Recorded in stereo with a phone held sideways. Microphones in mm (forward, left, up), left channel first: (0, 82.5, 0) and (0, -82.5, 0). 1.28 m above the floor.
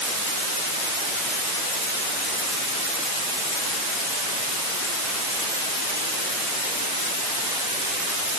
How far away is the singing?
I don't hear singing.